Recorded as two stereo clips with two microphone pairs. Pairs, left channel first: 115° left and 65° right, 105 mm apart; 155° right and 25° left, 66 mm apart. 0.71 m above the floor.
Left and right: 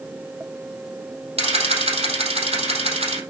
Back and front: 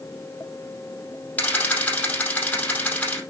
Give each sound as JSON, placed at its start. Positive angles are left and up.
{"t": 1.4, "sound": "a camera shutter", "azimuth_deg": -90, "distance_m": 4.5}